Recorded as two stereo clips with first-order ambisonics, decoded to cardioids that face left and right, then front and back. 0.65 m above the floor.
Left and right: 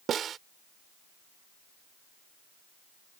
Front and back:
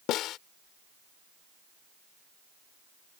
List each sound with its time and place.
0.1 s a snare drum: 35° right